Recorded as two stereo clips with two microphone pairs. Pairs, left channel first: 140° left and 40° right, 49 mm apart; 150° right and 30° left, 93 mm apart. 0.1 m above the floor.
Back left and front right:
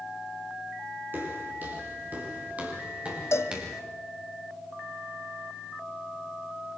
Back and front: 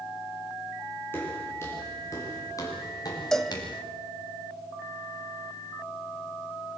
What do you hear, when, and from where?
1.1 s footsteps: 85° right, 7.5 m; by 3.8 s 110° right, 5.5 m
3.3 s a cowbell: 125° left, 1.3 m